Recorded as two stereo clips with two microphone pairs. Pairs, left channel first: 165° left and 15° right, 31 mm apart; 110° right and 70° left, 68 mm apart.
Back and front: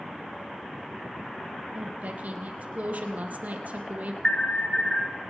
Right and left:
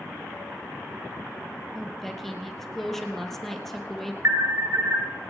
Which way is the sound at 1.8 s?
25° right.